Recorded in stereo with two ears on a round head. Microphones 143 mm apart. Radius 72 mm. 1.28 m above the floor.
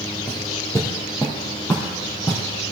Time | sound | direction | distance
0.3 | footsteps | 15° left (ahead or behind) | 1.9 m